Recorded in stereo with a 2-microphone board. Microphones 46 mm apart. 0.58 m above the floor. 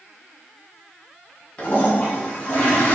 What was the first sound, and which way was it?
A toilet flushing, 30° left (ahead or behind).